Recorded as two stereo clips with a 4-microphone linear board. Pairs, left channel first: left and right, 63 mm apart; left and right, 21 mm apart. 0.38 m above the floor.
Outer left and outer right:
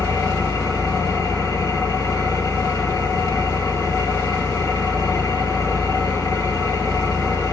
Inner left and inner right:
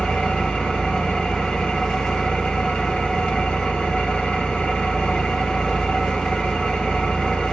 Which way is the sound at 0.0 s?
80° left.